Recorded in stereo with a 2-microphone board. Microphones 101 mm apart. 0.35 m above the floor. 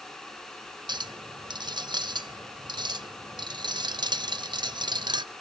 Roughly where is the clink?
Right.